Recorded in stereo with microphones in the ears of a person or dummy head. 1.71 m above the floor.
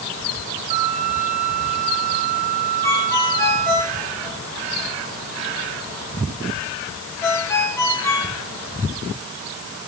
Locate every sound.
0.7 s a flute: 40° right (ahead or behind), 1.6 m
2.8 s a ringtone: 15° left (ahead or behind), 5 m